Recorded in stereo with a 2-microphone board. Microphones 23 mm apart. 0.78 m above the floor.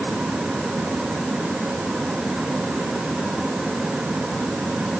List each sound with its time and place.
Only background noise.